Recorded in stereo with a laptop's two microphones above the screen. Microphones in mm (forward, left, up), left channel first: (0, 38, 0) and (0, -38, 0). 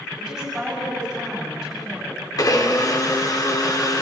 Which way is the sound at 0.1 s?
Centre (ahead or behind).